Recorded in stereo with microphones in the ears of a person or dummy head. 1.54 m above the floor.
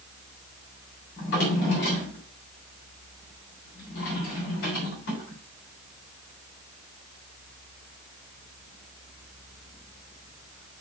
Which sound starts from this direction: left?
A drawer, at 1.2 s.